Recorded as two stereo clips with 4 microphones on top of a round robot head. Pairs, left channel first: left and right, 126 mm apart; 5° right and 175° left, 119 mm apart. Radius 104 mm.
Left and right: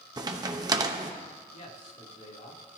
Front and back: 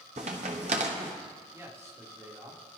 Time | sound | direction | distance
0.2 | a crack | 135° right | 0.9 m
1.5 | a man speaking | 110° left | 3.5 m